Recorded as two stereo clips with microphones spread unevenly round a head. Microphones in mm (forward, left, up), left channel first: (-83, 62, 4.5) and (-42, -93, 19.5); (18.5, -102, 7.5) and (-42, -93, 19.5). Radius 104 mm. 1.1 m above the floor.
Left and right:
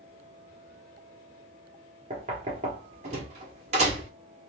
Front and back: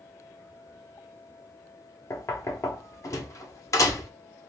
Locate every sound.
2.1 s knocking: 15° right, 0.9 m